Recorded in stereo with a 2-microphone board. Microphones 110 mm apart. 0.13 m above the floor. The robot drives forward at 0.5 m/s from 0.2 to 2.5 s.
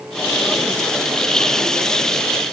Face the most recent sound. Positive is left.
No sound to turn to.